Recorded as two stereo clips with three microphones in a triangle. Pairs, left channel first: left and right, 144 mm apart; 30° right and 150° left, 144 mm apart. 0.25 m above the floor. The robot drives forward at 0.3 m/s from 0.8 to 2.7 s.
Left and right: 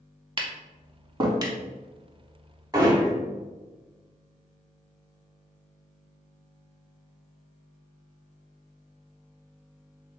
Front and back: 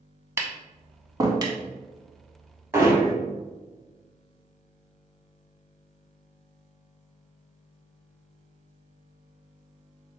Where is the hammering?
145° right, 1.1 m.